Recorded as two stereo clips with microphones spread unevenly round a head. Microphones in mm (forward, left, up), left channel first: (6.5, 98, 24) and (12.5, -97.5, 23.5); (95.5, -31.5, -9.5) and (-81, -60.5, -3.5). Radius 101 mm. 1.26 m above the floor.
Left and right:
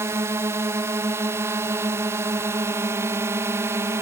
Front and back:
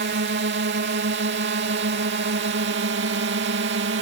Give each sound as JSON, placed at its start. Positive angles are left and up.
{"t": 0.0, "sound": "a drone", "azimuth_deg": -165}